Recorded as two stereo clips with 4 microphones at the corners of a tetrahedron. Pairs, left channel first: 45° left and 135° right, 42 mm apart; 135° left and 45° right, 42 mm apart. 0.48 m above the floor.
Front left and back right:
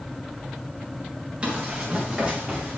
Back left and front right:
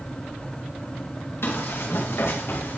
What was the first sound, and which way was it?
Running footsteps, 160° left.